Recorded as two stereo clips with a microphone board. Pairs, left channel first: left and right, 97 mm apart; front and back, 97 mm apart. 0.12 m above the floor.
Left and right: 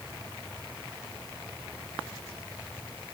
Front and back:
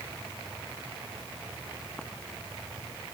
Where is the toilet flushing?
I don't hear a toilet flushing.